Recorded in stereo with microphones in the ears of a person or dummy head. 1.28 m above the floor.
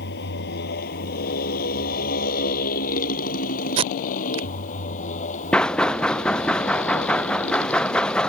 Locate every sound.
0.0 s a motorcycle: 55° left (ahead or behind); by 8.3 s 35° left (ahead or behind)
3.8 s tape being pulled: 30° right (ahead or behind)
5.5 s knocking: 5° left (ahead or behind)